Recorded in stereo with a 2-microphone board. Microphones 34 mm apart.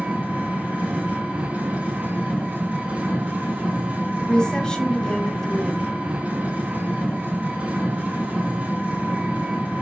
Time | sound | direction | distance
0.0 | an engine running | 40° right (ahead or behind) | 4 m
4.2 | a woman speaking | 25° left (ahead or behind) | 2.5 m